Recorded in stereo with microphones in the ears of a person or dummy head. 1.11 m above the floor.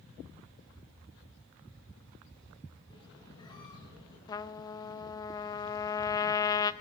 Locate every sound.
2.9 s a squeak: 20° left (ahead or behind), 5 m
4.3 s a trumpet: 20° left (ahead or behind), 0.6 m